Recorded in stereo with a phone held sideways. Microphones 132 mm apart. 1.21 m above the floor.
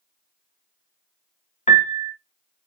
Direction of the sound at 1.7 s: 60° left (ahead or behind).